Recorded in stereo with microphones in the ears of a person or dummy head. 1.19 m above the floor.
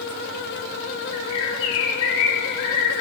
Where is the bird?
65° left (ahead or behind), 2 m.